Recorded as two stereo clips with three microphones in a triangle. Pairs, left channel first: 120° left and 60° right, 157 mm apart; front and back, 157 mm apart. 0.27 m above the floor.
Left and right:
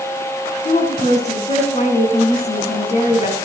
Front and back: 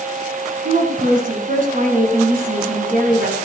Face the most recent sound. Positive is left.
turn(degrees=155)